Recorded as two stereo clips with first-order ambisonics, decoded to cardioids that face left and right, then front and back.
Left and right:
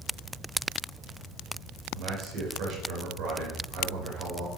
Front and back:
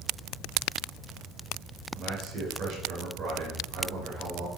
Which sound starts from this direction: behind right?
A man speaking, at 1.9 s.